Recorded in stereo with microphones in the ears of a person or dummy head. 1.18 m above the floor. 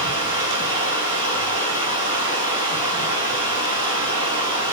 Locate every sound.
0.0 s running water: 25° right (ahead or behind), 10 m